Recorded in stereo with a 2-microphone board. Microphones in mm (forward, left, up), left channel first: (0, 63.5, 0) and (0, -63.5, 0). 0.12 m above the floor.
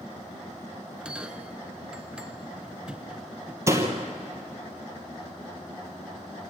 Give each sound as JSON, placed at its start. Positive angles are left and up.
{"t": 1.0, "sound": "a bell", "side_deg": -5, "distance_m": 0.8}
{"t": 3.7, "sound": "a door slam", "side_deg": -20, "distance_m": 2.5}